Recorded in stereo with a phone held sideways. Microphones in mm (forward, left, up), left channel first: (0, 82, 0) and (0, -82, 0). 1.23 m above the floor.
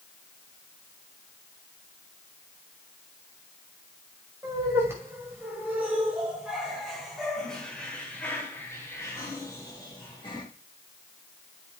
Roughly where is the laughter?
Centre.